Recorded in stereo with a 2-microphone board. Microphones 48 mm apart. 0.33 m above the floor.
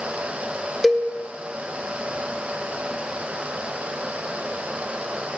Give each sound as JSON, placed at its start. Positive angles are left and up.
{"t": 0.8, "sound": "a cowbell", "side_deg": 10, "distance_m": 0.5}